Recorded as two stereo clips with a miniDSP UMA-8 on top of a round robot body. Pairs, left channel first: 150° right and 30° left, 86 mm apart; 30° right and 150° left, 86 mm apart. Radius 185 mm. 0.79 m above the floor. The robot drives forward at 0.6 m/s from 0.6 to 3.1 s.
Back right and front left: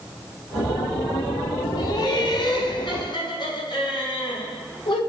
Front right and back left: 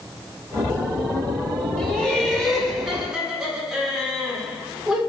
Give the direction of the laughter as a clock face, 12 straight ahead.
4 o'clock.